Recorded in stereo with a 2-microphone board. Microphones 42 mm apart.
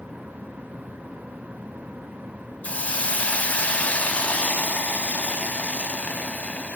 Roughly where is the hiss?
Left.